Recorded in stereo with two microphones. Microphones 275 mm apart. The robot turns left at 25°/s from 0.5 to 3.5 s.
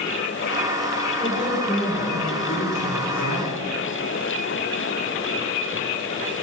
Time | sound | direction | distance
1.2 | a woman speaking | 150° left | 10 m